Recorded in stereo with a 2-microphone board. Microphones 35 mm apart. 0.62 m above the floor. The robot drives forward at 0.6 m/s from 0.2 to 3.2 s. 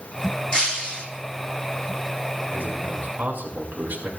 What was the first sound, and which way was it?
Breaking glass, 25° left (ahead or behind).